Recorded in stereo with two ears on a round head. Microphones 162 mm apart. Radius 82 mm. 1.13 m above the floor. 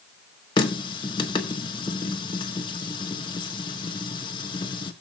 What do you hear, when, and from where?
0.6 s a running tap: 25° left (ahead or behind), 1.3 m